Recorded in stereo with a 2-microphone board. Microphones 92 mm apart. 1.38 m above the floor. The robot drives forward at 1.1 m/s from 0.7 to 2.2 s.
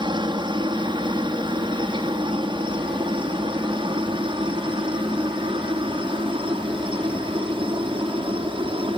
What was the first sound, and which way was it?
A helicopter, 55° right (ahead or behind).